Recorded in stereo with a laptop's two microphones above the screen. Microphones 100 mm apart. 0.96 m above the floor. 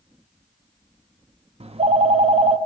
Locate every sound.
1.6 s a phone ringing: 90° right, 0.7 m